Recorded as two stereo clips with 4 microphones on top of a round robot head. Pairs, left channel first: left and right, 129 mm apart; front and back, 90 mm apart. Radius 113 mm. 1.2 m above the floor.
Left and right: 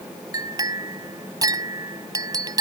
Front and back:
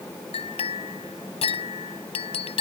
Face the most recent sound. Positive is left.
turn(degrees=-30)